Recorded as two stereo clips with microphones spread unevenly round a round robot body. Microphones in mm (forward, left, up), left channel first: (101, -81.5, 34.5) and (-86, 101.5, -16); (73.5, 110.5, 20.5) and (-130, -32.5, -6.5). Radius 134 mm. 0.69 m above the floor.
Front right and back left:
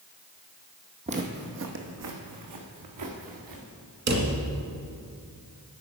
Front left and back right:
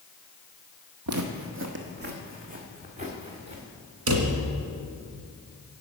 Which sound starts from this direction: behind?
A drawer, at 4.1 s.